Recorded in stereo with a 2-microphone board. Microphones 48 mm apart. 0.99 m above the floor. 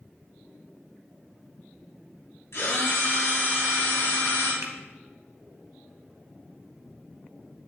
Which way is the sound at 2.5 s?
80° left.